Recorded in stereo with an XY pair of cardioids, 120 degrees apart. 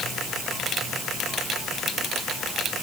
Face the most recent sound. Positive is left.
No sound to turn to.